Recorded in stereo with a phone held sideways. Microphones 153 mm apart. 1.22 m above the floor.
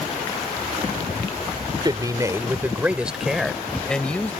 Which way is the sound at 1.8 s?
30° right (ahead or behind).